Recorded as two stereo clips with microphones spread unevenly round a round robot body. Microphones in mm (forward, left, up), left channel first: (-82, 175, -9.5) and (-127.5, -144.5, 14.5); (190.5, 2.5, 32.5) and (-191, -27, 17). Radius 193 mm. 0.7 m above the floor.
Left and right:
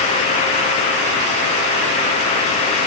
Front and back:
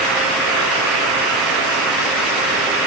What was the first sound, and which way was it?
Only background noise.